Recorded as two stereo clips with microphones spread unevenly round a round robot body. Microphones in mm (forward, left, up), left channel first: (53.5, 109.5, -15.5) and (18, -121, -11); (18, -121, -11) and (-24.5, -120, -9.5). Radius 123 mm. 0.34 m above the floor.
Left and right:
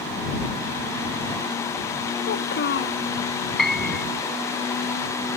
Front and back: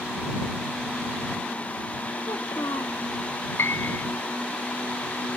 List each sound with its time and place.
2.2 s a child speaking: 40° left
3.6 s a piano: 5° right